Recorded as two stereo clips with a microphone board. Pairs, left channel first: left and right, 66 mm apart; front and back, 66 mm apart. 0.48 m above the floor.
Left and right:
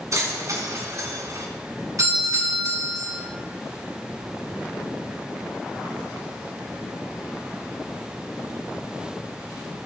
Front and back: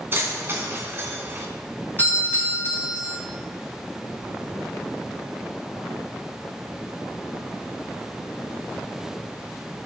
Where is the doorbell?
60° right, 5 m.